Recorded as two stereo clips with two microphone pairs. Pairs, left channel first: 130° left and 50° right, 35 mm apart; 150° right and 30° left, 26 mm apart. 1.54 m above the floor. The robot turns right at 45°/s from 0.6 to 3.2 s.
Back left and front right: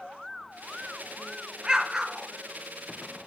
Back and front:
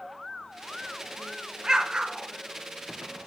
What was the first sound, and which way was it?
An explosion, 15° right.